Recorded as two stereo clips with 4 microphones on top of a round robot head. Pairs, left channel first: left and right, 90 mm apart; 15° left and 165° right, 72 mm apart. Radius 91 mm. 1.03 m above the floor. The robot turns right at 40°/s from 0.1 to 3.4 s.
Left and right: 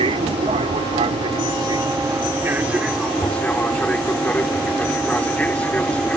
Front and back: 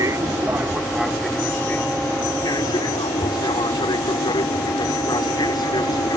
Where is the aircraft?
115° right; by 6.2 s 15° left.